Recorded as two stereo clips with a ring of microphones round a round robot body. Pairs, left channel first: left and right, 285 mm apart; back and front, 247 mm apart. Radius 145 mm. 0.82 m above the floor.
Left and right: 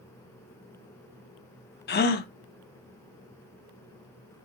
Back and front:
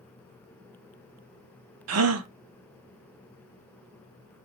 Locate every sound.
1.9 s a gasp: 30° left, 0.8 m